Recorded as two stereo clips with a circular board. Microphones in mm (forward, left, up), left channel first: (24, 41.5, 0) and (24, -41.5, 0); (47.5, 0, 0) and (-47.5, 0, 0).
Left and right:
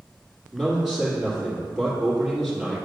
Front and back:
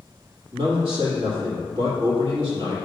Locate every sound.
0.5 s a man speaking: 175° right, 2.5 m